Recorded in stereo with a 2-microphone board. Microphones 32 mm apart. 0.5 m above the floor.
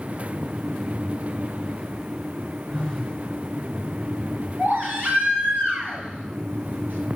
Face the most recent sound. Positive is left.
turn(degrees=-85)